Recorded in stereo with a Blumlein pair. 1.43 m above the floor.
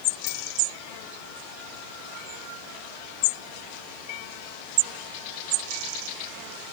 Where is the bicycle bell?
40° left, 5 m.